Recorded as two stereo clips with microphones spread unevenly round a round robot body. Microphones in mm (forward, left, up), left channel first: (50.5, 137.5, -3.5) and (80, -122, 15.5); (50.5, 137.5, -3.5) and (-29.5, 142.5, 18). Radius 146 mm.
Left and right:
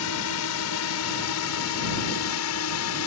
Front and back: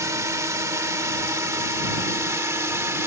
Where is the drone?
130° left; by 3.1 s 125° left.